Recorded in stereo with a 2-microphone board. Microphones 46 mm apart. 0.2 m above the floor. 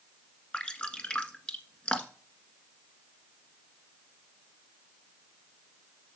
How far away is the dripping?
About 1.6 m.